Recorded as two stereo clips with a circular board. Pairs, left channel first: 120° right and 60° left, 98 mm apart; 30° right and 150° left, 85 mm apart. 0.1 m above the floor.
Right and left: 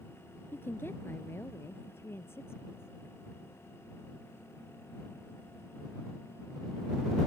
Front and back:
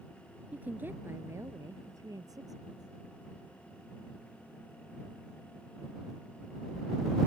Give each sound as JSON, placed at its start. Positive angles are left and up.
{"t": 0.5, "sound": "a woman speaking", "azimuth_deg": -155}